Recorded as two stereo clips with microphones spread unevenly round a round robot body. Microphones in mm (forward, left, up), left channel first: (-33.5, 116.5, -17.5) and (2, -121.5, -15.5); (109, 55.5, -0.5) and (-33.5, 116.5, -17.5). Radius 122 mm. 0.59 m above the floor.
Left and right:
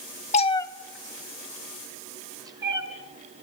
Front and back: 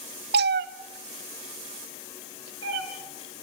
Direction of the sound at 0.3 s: 160° left.